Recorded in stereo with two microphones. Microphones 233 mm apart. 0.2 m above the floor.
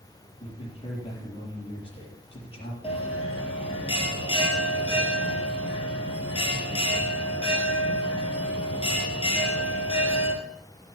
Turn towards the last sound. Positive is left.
turn(degrees=25)  # may be behind; listen again after turning